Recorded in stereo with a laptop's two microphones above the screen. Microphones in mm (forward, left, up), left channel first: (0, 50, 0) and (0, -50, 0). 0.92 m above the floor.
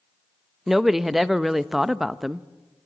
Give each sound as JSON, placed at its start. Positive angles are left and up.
{"t": 0.7, "sound": "a woman speaking", "side_deg": -5, "distance_m": 0.6}